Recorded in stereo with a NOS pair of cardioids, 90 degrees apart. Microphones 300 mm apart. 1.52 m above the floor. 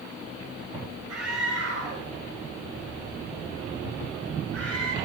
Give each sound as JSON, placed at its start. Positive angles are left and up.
{"t": 1.1, "sound": "a scream", "azimuth_deg": -55, "distance_m": 7.5}